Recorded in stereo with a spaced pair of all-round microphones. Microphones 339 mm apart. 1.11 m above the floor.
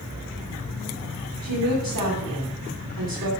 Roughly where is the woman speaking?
Right.